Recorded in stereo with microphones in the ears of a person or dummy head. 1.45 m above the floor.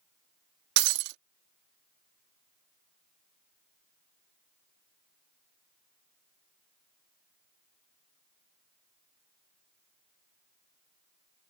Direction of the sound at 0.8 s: 65° right (ahead or behind).